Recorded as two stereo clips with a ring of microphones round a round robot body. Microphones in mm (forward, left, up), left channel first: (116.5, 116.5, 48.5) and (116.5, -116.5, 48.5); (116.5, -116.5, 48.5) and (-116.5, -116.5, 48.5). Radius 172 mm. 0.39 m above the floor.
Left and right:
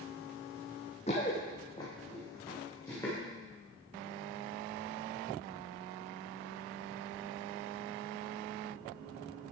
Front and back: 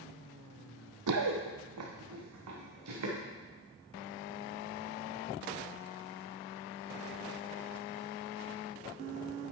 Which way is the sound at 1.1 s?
160° left.